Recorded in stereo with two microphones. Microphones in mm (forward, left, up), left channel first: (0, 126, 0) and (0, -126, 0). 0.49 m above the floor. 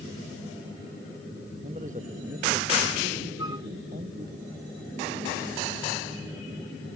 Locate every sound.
1.6 s a man speaking: 30° right (ahead or behind); by 4.4 s 40° right (ahead or behind)
3.4 s a flute: 15° right (ahead or behind)